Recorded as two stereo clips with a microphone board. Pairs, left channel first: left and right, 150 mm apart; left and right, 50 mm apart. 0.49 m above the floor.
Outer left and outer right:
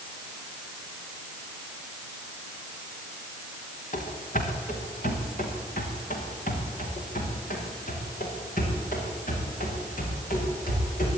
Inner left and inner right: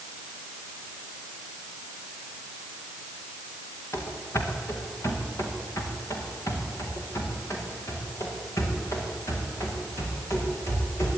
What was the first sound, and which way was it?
Running footsteps, 60° left (ahead or behind).